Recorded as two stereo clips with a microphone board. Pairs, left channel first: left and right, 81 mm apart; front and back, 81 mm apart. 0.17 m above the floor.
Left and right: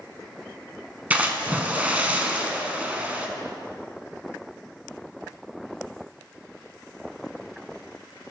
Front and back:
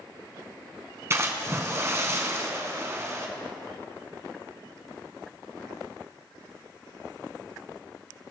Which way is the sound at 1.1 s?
150° right.